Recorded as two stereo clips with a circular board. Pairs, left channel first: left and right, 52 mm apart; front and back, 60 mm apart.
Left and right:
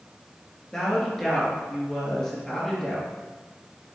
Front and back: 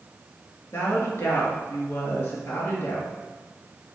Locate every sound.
0.7 s a woman speaking: 15° left, 2.5 m